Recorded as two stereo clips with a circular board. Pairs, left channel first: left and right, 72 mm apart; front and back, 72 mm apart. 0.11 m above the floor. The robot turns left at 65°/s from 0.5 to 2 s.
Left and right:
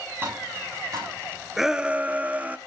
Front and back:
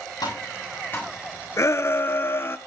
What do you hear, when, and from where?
0.2 s tapping: 30° right, 7 m; by 1.1 s 70° right, 7 m
1.6 s a shout: 5° right, 1.4 m; by 2.6 s 35° right, 1.4 m